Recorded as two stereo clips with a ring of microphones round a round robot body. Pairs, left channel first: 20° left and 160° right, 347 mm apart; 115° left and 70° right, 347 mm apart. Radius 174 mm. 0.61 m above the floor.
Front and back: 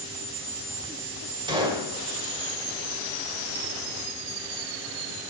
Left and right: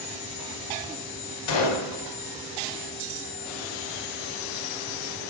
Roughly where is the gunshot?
Behind left.